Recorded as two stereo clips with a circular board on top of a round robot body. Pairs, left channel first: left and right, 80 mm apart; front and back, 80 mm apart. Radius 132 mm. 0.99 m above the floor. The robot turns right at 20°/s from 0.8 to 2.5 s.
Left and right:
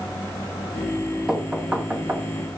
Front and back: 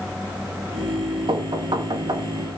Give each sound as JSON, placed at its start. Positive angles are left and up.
{"t": 1.3, "sound": "knocking", "azimuth_deg": -170, "distance_m": 2.0}